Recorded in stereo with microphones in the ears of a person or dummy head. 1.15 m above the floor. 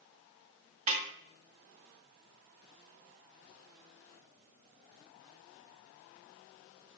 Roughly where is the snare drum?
Right.